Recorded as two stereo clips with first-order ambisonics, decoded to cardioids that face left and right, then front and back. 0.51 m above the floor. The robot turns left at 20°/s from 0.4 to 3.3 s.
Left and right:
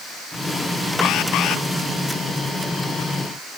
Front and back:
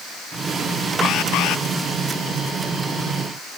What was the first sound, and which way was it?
An alarm, 50° left.